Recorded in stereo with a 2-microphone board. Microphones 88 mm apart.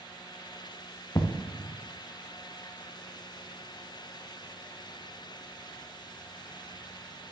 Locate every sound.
1.1 s an explosion: 40° left (ahead or behind), 1.7 m